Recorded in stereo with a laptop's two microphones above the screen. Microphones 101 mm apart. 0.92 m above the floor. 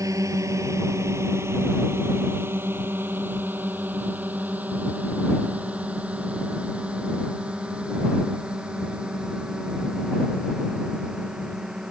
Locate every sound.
0.0 s a drone: 35° right (ahead or behind); by 11.9 s 5° right (ahead or behind)